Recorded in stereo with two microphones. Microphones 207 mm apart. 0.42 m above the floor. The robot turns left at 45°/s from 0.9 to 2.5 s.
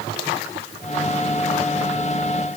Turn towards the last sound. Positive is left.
No sound to turn to.